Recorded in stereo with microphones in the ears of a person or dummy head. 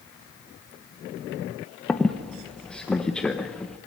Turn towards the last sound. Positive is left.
turn(degrees=0)  # may be behind; listen again after turning